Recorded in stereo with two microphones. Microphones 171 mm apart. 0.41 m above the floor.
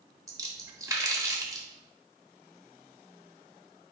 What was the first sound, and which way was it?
A splash, 20° right (ahead or behind).